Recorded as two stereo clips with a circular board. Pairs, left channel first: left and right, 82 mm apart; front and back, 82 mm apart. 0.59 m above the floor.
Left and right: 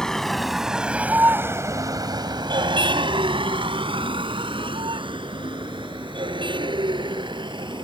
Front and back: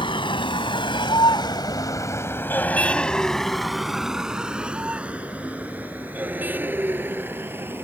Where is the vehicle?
10° left; by 7.8 s 115° right.